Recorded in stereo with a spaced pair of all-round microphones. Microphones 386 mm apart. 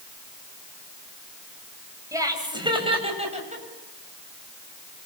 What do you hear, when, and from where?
2.1 s laughter: 10° right (ahead or behind), 7.5 m; by 3.6 s 20° right (ahead or behind), 8 m